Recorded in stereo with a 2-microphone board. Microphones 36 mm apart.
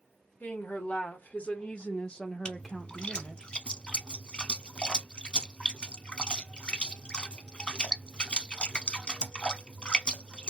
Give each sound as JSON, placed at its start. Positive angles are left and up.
{"t": 0.4, "sound": "a woman speaking", "side_deg": 40, "distance_m": 1.5}
{"t": 2.5, "sound": "a splash", "side_deg": 25, "distance_m": 0.6}